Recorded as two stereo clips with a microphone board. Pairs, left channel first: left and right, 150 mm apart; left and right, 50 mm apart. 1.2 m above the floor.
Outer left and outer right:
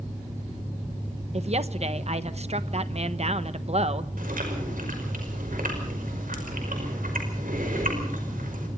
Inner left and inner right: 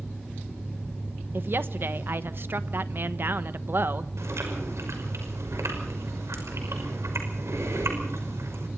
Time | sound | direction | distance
1.3 | a woman speaking | 50° right (ahead or behind) | 1.0 m
4.2 | chewing | 80° right | 5.5 m